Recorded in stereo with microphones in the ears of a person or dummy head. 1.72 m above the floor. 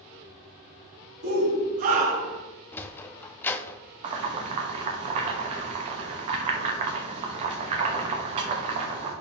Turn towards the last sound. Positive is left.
turn(degrees=-30)  # may be behind; listen again after turning